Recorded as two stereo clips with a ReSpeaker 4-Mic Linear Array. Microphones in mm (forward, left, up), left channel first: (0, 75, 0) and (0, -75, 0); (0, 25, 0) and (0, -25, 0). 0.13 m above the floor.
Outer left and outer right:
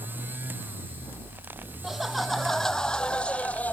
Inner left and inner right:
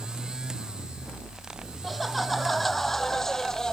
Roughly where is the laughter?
Centre.